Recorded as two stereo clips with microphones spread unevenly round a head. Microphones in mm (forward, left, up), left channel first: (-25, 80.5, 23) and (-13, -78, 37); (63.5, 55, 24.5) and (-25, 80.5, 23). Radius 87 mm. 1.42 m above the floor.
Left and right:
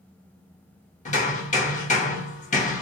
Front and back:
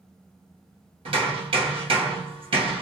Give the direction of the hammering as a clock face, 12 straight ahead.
7 o'clock.